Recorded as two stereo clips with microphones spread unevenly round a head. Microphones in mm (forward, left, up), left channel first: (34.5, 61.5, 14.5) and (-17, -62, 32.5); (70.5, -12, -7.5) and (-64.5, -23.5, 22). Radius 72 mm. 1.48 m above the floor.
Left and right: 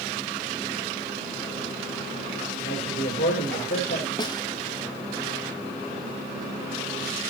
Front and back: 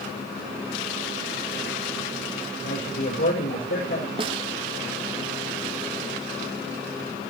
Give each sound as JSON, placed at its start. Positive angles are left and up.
{"t": 2.6, "sound": "a man speaking", "azimuth_deg": 25, "distance_m": 7.0}
{"t": 4.2, "sound": "a snare drum", "azimuth_deg": 125, "distance_m": 1.0}